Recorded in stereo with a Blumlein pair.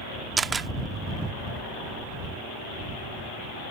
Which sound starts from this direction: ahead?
A camera shutter, at 0.4 s.